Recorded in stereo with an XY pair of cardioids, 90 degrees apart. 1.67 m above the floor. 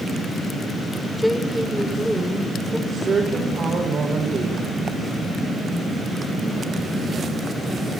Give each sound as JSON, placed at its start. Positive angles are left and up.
{"t": 1.2, "sound": "a woman speaking", "azimuth_deg": 5, "distance_m": 6.5}
{"t": 2.9, "sound": "a woman speaking", "azimuth_deg": -50, "distance_m": 6.0}